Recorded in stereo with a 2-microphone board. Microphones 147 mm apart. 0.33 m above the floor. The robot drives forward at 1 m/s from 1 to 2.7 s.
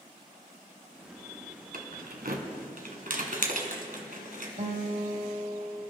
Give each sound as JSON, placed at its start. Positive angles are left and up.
{"t": 1.7, "sound": "keys jangling", "side_deg": -70, "distance_m": 1.7}
{"t": 4.6, "sound": "a guitar", "side_deg": -50, "distance_m": 1.4}